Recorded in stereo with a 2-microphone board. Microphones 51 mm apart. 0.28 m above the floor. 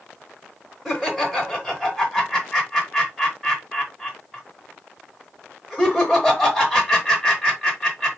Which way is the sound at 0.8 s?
Centre (ahead or behind).